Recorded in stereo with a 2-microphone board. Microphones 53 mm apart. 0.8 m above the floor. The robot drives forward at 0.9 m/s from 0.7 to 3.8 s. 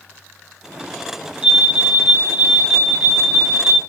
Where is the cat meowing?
I don't hear a cat meowing.